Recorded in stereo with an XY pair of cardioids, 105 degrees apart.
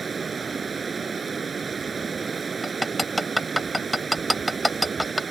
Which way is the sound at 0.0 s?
35° right.